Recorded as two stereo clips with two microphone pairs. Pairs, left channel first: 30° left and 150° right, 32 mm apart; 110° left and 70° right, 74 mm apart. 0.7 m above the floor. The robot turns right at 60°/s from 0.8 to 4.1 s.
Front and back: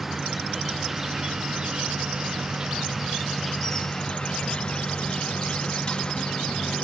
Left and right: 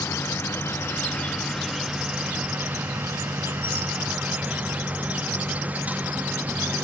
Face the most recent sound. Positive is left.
turn(degrees=-20)